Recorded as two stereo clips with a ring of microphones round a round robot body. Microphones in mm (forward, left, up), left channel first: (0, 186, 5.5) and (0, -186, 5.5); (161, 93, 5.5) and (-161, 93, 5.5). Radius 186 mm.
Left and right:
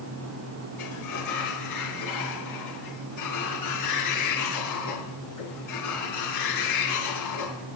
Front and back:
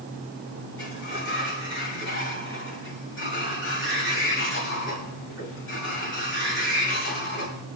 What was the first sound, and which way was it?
A sliding door, 50° left.